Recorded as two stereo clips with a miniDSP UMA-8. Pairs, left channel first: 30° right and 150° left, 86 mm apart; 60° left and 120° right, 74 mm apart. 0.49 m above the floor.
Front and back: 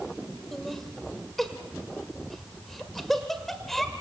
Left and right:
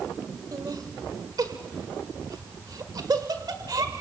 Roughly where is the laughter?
Behind right.